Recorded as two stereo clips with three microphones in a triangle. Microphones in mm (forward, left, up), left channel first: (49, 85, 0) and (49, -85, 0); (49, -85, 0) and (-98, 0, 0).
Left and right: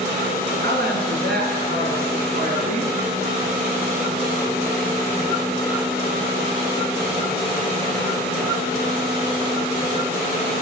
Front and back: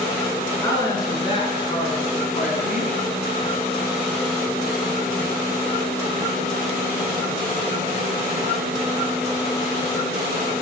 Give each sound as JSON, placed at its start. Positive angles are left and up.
{"t": 0.6, "sound": "a woman speaking", "azimuth_deg": -100, "distance_m": 3.0}